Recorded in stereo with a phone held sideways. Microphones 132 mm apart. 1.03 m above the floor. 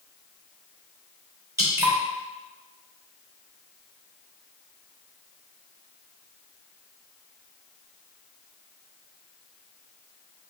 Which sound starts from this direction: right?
Dripping, at 1.6 s.